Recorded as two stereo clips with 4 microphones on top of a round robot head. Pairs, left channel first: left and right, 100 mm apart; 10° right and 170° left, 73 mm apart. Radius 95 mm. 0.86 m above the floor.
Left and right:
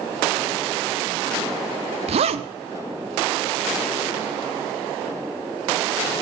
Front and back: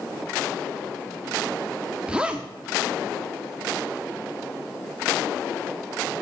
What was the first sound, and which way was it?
A zipper, 110° right.